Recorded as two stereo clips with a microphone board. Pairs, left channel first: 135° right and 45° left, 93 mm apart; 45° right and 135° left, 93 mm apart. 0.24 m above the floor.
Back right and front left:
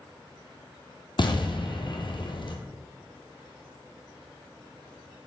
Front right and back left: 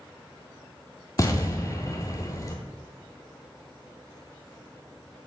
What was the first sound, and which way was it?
An explosion, 100° right.